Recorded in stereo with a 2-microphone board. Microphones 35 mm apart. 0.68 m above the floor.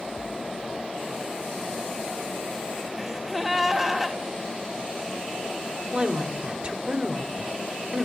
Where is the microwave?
No microwave in this recording.